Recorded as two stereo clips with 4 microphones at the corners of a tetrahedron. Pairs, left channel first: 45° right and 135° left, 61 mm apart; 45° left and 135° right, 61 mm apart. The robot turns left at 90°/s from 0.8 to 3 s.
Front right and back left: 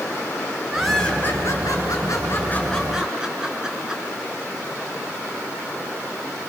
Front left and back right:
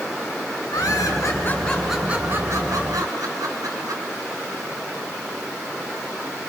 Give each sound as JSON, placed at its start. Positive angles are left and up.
{"t": 0.7, "sound": "laughter", "azimuth_deg": 50, "distance_m": 5.0}